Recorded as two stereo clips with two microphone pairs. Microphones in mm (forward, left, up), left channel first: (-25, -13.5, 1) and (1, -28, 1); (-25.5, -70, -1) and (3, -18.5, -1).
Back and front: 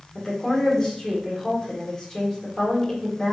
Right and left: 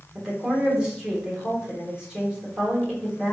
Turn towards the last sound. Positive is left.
turn(degrees=125)